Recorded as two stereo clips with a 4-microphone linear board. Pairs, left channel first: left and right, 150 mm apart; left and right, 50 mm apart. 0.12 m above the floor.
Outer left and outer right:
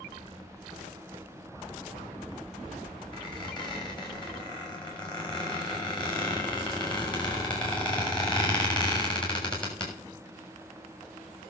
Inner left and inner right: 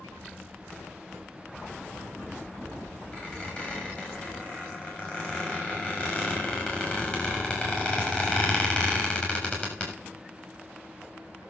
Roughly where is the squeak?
Left.